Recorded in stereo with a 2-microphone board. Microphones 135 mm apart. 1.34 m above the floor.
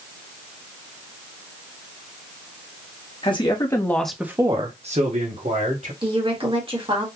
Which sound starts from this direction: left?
A man speaking, at 3.2 s.